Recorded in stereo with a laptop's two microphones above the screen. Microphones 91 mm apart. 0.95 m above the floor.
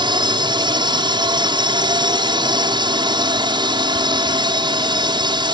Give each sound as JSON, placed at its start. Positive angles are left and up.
{"t": 0.0, "sound": "a drone", "side_deg": -55}